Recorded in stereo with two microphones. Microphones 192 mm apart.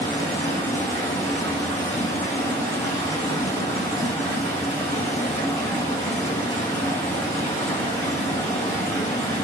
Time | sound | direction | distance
0.0 | running water | 15° left (ahead or behind) | 2 m